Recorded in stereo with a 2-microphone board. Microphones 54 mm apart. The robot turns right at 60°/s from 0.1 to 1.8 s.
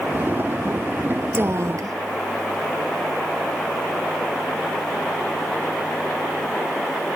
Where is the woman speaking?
40° right (ahead or behind); by 2.0 s 70° right (ahead or behind).